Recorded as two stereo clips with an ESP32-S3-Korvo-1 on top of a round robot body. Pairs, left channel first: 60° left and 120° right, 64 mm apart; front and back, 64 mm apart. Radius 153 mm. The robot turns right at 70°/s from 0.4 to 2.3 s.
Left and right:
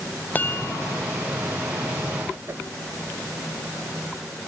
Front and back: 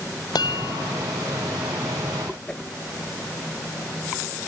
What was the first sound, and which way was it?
A chime, 5° right.